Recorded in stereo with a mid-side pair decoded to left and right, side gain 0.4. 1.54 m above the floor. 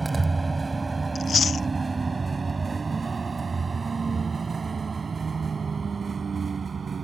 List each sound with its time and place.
0.0 s a vehicle: 30° right; by 7.0 s 50° right
1.1 s chewing: 45° left